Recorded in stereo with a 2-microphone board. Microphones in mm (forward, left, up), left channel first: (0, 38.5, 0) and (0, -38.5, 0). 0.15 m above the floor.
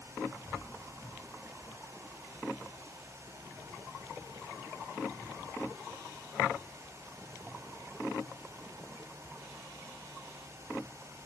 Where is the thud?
No thud in this recording.